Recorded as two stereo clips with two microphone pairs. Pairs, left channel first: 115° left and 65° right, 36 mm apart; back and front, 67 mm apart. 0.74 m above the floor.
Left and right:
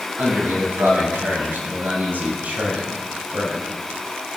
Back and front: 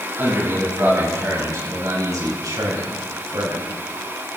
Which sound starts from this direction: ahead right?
A man speaking, at 0.2 s.